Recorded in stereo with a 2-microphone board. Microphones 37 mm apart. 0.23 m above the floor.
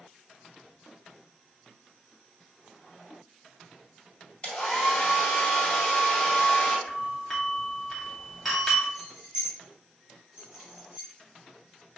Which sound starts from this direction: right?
Keys jangling, at 8.9 s.